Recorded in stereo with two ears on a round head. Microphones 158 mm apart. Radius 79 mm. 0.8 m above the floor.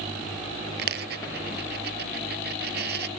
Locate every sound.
0.8 s a dropped coin: 65° right (ahead or behind)